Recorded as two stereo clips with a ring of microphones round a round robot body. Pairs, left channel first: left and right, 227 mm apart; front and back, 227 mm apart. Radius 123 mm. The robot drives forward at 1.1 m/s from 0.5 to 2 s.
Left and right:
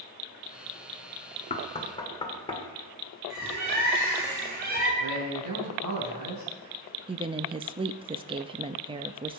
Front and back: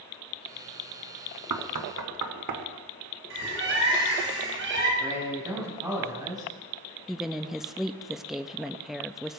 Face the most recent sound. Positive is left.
turn(degrees=-95)